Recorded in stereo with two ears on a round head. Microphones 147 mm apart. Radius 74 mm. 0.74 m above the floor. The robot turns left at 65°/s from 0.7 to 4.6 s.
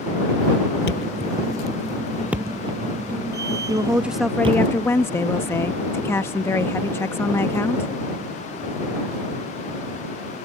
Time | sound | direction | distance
0.9 | a thud | 75° left (ahead or behind) | ?
3.7 | a woman speaking | 145° right | ?